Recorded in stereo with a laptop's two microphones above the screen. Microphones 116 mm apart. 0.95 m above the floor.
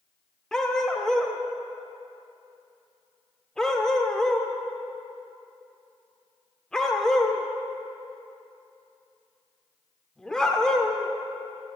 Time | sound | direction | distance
0.5 | a dog barking | 5° left (ahead or behind) | 0.6 m